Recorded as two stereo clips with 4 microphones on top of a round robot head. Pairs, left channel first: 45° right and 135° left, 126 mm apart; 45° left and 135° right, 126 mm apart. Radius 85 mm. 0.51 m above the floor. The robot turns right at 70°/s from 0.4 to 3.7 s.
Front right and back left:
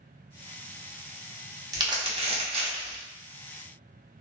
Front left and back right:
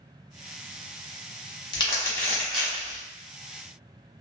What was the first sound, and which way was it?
Crumpling, 85° left.